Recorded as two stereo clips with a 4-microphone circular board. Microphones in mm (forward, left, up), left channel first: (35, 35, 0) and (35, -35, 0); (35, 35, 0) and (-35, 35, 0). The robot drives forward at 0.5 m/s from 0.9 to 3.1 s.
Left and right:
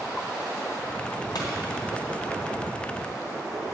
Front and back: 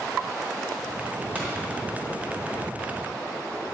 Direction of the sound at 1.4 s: 115° left.